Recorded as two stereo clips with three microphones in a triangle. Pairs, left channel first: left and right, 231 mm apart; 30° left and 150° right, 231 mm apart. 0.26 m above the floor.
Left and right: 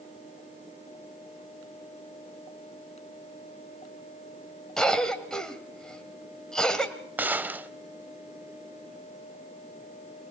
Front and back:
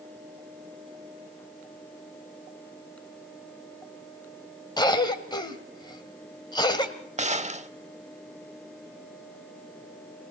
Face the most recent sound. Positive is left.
turn(degrees=-165)